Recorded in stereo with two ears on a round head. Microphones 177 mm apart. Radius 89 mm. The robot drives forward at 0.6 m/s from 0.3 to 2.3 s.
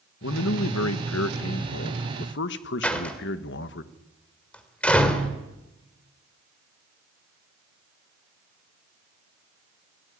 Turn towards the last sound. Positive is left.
turn(degrees=5)  # may be behind; listen again after turning